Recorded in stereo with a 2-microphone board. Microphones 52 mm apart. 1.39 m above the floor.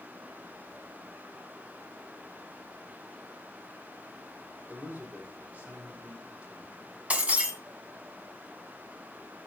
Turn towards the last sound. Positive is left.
turn(degrees=-25)  # may be behind; listen again after turning